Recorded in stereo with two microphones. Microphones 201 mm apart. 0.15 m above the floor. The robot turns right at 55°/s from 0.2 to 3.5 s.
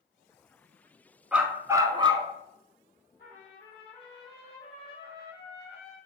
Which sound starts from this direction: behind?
A dog barking, at 1.3 s.